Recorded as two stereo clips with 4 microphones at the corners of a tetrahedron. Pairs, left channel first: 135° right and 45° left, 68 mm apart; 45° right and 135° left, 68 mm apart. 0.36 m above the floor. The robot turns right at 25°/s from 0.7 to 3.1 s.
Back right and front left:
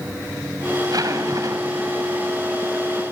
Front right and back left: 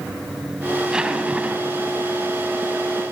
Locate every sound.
0.8 s a zipper: 55° left, 2.5 m; by 2.0 s 85° left, 2.5 m